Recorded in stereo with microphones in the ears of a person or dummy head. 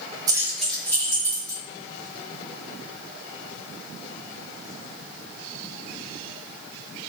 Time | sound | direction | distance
0.3 | keys jangling | 15° right (ahead or behind) | 0.7 m